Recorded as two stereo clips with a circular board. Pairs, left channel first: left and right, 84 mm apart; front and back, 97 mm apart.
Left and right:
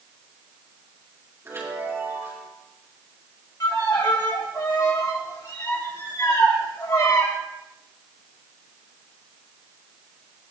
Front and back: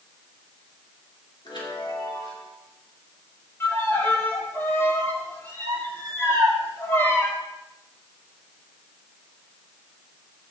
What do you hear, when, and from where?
1.4 s a chime: 30° right, 4.5 m
3.6 s a violin: 60° left, 3 m